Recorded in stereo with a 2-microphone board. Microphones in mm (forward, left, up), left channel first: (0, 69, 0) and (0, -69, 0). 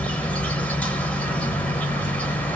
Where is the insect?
10° left (ahead or behind), 0.7 m.